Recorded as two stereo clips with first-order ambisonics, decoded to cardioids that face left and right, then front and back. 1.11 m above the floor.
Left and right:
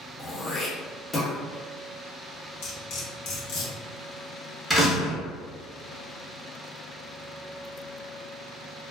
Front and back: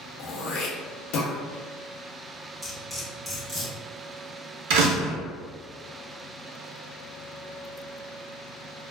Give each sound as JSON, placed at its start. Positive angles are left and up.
{"t": 0.2, "sound": "throat clearing", "azimuth_deg": 15, "distance_m": 0.6}
{"t": 2.6, "sound": "cutlery clinking", "azimuth_deg": 95, "distance_m": 1.0}
{"t": 4.7, "sound": "a door slam", "azimuth_deg": -175, "distance_m": 0.8}